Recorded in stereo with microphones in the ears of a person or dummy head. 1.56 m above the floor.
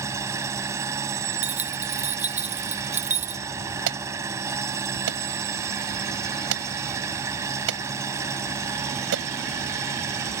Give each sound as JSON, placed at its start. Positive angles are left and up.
{"t": 0.0, "sound": "an engine running", "side_deg": -15}
{"t": 1.4, "sound": "keys jangling", "side_deg": -5}
{"t": 3.9, "sound": "an alarm", "side_deg": -70}